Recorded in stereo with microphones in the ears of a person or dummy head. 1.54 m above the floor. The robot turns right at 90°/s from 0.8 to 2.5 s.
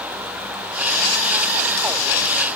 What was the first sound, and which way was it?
Only background noise.